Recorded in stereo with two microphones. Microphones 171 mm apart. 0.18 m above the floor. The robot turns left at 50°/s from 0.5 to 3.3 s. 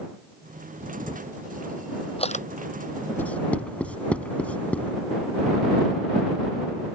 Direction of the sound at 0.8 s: 35° right (ahead or behind).